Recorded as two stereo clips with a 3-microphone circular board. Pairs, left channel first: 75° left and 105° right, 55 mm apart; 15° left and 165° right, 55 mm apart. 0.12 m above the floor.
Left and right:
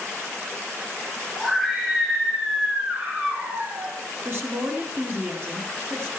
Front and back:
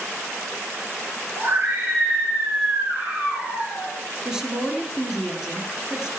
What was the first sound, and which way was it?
A scream, 160° left.